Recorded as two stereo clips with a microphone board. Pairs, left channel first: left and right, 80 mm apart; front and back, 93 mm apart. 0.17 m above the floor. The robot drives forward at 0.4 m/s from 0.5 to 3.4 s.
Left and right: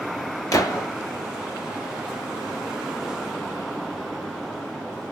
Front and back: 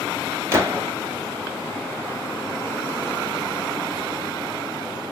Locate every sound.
0.5 s a gunshot: 125° left, 1.2 m; by 0.9 s 130° left, 1.2 m